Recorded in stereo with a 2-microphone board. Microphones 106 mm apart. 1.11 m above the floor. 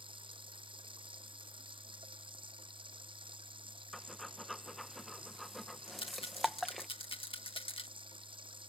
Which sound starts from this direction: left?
A rattle, at 5.9 s.